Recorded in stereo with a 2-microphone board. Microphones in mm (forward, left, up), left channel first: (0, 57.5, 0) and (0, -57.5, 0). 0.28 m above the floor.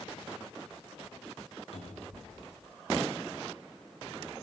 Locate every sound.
1.7 s a cupboard door: 60° left (ahead or behind), 1.9 m